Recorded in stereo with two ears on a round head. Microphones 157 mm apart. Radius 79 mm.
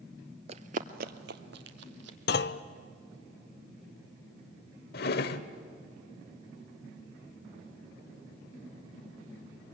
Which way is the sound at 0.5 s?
35° right (ahead or behind).